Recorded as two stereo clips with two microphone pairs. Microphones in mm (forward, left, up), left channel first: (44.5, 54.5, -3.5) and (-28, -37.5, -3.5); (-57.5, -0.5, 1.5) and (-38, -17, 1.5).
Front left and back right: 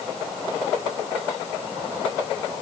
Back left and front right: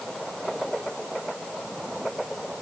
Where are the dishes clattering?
No dishes clattering in this recording.